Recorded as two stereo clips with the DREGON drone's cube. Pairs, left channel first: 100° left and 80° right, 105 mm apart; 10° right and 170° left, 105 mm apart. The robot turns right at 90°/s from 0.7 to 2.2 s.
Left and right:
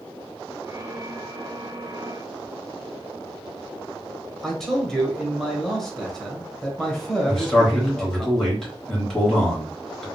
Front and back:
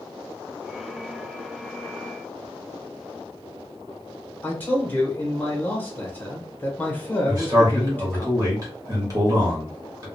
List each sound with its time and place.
4.4 s a man speaking: 20° left, 0.9 m
7.3 s a man speaking: straight behind, 1.2 m